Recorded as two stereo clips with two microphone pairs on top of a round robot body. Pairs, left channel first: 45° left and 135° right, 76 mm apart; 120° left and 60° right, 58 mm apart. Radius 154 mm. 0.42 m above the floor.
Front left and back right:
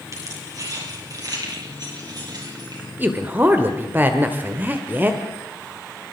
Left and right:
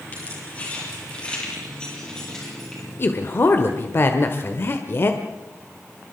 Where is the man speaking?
165° left, 1.7 m.